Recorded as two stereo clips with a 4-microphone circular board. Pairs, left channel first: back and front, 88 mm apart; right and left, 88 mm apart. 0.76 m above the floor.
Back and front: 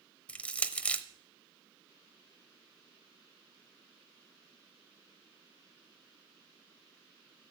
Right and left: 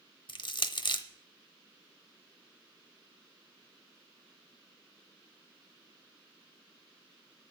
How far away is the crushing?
About 0.9 m.